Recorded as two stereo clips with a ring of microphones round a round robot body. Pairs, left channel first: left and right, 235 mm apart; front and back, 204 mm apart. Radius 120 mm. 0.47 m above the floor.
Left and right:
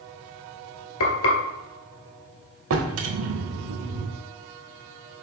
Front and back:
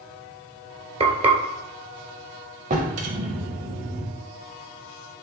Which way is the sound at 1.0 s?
120° left.